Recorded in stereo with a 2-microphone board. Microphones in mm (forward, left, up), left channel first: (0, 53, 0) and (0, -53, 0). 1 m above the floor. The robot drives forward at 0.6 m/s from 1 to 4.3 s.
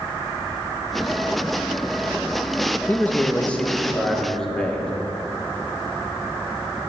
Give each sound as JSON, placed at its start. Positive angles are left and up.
{"t": 2.9, "sound": "a man speaking", "side_deg": 20, "distance_m": 0.6}